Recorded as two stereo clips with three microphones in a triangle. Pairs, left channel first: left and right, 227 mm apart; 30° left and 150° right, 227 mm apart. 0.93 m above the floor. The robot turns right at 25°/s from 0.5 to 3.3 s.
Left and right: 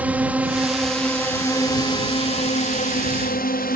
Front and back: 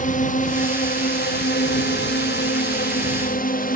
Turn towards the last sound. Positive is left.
turn(degrees=60)